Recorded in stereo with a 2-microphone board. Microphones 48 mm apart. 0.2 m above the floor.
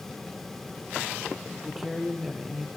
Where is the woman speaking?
10° right (ahead or behind), 4.5 m.